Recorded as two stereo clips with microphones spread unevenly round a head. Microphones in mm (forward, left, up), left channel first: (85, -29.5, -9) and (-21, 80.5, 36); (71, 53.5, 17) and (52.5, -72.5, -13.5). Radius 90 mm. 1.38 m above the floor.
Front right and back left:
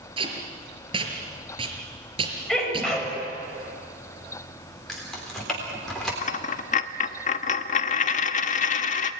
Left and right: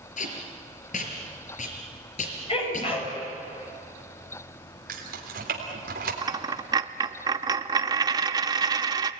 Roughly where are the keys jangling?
Behind right.